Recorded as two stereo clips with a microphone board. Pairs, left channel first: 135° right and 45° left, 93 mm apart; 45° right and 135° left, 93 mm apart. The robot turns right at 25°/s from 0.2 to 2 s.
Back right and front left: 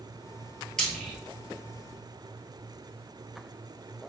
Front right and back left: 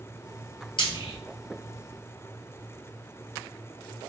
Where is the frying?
50° right, 1.1 m; by 1.2 s 40° right, 1.1 m.